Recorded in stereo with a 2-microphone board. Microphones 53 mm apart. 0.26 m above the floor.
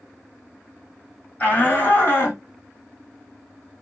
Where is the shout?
30° left (ahead or behind), 1.5 m; by 2.4 s 45° left (ahead or behind), 1.8 m.